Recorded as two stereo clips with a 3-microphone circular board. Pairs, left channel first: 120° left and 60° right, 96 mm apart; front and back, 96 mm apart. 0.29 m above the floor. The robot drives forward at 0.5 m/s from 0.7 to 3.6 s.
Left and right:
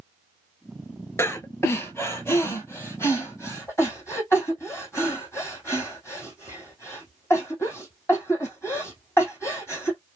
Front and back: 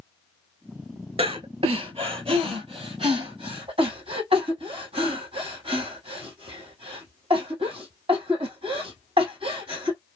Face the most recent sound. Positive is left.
turn(degrees=180)